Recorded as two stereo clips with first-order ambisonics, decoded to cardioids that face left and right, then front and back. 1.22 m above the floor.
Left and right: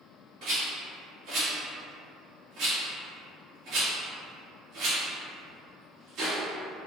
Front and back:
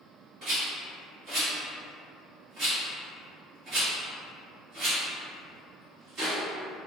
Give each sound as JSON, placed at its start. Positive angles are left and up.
{"t": 0.4, "sound": "a rattle", "azimuth_deg": -125, "distance_m": 1.6}